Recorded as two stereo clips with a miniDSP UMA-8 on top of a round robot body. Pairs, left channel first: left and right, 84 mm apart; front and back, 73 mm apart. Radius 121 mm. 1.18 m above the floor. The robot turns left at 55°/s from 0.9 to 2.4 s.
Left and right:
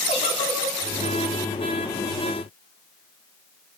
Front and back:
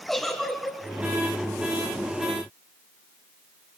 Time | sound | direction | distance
0.1 | a giggle | 85° left | 3.5 m